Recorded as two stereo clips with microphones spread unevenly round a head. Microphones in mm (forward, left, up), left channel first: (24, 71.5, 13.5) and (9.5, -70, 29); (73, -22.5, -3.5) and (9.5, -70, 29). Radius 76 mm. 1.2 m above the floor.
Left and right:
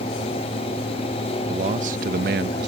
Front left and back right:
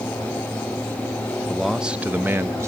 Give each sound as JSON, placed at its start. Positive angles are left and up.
{"t": 1.5, "sound": "a man speaking", "azimuth_deg": -45}